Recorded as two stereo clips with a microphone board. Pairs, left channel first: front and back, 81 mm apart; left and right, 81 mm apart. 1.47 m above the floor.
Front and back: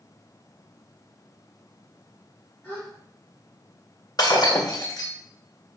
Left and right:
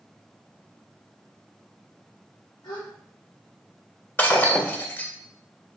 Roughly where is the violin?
No violin in this recording.